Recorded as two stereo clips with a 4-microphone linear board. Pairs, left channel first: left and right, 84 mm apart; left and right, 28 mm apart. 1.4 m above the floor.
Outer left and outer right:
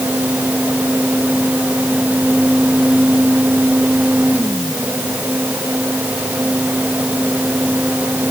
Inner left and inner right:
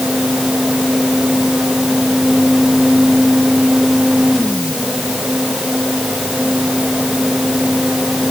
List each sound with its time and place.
Only background noise.